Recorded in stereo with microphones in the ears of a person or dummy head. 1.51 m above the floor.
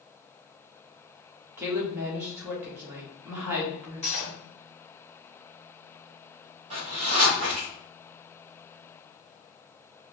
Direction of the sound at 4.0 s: 35° left (ahead or behind).